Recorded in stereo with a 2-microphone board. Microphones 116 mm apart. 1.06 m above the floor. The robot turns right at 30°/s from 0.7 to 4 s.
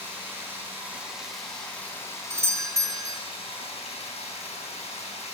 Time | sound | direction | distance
0.0 | running water | 15° right | 3.5 m
2.3 | a doorbell | 25° right (ahead or behind) | 0.5 m